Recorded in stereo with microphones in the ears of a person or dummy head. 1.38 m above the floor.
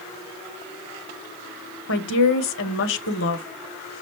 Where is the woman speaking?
70° left (ahead or behind), 0.8 m.